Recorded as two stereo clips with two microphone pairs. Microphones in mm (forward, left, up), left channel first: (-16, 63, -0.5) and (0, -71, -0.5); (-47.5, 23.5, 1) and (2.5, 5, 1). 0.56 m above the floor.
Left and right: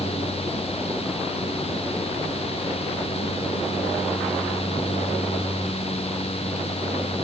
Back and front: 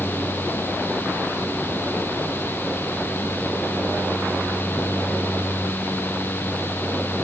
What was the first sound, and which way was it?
Only background noise.